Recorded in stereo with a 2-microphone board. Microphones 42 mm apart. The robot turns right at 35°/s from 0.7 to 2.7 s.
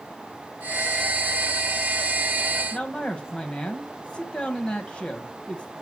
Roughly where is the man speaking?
Left.